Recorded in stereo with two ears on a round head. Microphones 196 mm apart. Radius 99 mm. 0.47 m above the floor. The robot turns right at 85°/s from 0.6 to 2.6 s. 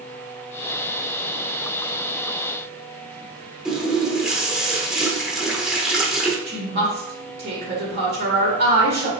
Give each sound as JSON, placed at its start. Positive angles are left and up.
{"t": 3.6, "sound": "a running tap", "side_deg": -5, "distance_m": 0.7}
{"t": 6.5, "sound": "a woman speaking", "side_deg": -45, "distance_m": 1.8}